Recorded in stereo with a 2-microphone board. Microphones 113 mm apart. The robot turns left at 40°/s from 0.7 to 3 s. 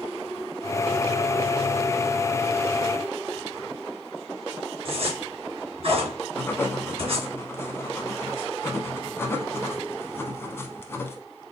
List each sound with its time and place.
4.8 s a zipper: 55° right (ahead or behind), 2.5 m
6.3 s writing: 20° left (ahead or behind), 0.8 m